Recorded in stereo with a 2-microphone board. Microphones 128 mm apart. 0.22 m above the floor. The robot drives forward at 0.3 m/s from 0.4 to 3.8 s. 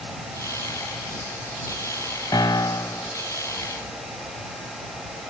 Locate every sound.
2.3 s a piano: 30° left (ahead or behind), 0.5 m; by 3.1 s 25° left (ahead or behind), 0.7 m